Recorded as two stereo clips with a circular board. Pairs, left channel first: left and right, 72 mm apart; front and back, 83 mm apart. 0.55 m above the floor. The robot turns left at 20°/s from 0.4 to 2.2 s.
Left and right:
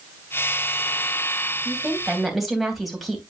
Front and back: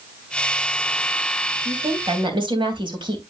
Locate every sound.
1.6 s a woman speaking: 165° right, 3 m; by 3.2 s straight behind, 3 m